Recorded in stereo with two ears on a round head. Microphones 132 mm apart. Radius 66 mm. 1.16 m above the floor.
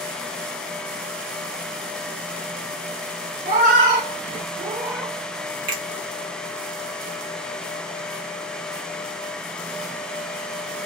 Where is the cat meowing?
60° right (ahead or behind), 1.9 m; by 5.2 s centre (ahead or behind), 1.0 m.